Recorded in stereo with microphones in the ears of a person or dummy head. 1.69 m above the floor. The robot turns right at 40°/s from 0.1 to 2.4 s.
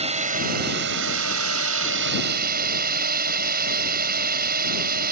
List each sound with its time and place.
0.0 s a drone: 145° right; by 5.1 s 55° right